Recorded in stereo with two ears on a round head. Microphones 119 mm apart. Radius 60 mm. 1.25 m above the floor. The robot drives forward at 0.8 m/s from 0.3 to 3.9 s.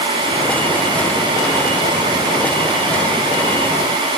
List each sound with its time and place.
Only background noise.